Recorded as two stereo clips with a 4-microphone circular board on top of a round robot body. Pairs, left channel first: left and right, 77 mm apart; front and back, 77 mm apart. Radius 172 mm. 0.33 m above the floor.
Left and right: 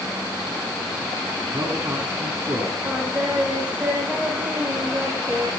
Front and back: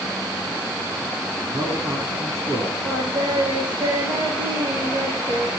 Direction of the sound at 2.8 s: 160° right.